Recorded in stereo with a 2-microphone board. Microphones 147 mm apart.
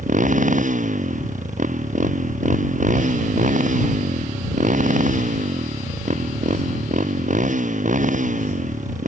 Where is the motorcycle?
60° right (ahead or behind).